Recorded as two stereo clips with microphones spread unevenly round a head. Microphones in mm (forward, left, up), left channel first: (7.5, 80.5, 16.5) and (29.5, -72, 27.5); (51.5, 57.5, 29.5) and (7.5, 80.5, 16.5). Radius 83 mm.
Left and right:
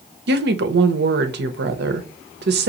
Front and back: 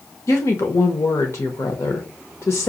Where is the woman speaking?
80° right, 0.8 m.